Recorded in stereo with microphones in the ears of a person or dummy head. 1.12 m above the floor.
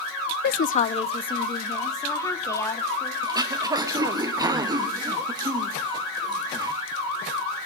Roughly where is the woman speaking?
Left.